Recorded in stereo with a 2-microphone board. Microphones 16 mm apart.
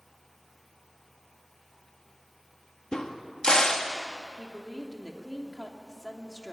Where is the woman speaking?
30° left (ahead or behind), 2.5 m.